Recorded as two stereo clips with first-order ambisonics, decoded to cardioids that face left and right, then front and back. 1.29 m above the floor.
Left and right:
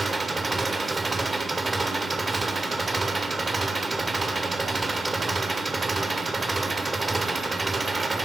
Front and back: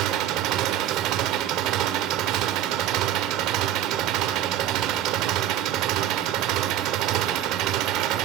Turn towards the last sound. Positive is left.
turn(degrees=-165)